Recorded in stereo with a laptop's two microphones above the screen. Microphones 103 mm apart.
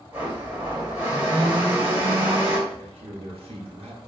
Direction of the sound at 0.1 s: 20° right (ahead or behind).